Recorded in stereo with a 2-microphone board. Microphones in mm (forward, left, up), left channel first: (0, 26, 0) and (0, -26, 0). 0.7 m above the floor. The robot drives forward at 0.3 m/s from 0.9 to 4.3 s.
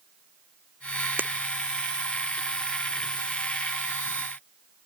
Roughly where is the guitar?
I don't hear a guitar.